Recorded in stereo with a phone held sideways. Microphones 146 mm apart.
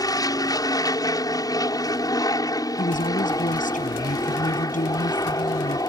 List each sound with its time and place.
0.0 s an aircraft: 25° left (ahead or behind)
2.8 s a woman speaking: 65° left (ahead or behind)